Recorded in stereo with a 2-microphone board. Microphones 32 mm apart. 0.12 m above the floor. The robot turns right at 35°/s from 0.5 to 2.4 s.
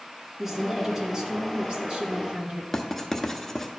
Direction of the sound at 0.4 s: 160° right.